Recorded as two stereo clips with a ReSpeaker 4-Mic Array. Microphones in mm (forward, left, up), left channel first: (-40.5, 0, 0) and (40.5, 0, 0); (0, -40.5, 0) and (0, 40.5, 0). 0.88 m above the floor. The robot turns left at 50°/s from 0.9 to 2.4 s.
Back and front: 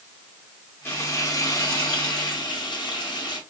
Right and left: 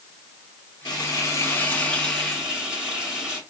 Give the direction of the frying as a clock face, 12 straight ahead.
4 o'clock.